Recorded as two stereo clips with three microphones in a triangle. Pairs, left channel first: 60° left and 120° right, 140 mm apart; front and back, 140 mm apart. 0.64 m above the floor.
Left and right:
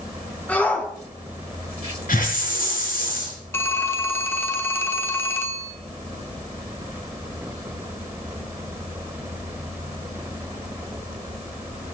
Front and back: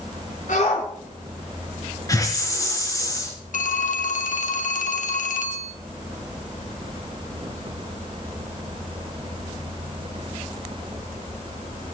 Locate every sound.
0.5 s a shout: 20° right, 5.5 m
2.1 s a hiss: 65° left, 3.5 m
3.5 s a phone ringing: 15° right, 1.1 m